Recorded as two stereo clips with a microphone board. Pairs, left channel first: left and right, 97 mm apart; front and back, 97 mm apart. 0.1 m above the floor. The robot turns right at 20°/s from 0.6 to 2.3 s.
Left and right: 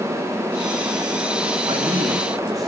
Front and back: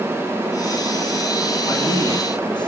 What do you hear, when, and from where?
1.7 s a man speaking: 50° right, 6 m; by 2.7 s 40° right, 6 m